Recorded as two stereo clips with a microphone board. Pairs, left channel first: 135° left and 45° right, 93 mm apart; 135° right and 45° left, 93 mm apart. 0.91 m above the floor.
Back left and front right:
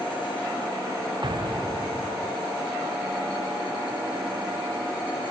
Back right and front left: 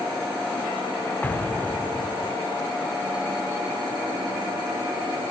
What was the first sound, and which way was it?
An explosion, 65° right.